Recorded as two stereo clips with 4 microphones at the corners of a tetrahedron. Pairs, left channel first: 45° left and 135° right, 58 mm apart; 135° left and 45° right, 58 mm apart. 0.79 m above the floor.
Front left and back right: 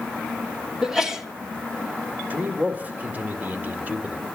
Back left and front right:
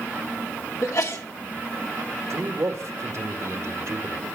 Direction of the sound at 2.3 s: 75° right.